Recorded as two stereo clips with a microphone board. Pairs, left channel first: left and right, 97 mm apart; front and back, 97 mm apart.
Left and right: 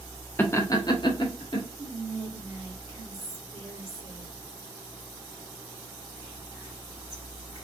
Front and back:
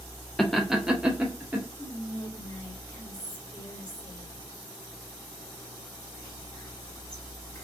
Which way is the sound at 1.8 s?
45° right.